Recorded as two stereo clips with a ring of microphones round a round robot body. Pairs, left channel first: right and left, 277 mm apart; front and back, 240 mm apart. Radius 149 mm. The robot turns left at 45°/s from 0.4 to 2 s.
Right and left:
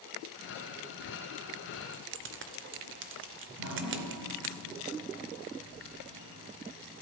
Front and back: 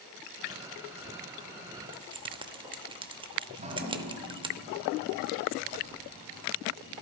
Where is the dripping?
120° left, 1.8 m.